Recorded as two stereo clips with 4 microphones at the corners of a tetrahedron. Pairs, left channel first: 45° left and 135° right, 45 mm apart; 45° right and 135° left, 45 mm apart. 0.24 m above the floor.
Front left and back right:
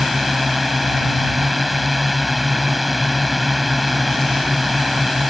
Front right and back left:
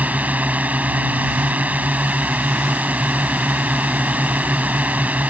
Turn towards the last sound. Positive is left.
turn(degrees=135)